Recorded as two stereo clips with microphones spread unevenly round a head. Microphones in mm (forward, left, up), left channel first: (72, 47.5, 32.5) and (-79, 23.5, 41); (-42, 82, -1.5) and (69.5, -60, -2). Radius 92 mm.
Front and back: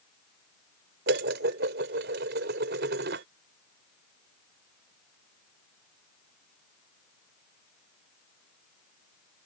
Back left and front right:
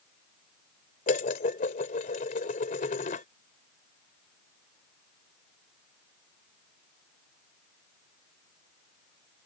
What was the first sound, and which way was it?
Dishes clattering, straight behind.